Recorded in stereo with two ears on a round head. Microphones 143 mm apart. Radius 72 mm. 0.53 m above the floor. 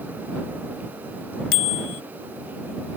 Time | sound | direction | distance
1.5 | a bicycle bell | 70° left (ahead or behind) | ?